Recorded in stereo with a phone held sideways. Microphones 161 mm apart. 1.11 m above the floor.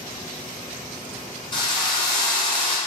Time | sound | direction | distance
1.5 | a drill | 30° left (ahead or behind) | 1.1 m